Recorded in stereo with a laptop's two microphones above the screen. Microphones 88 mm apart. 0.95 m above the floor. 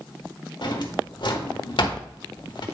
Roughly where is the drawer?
Left.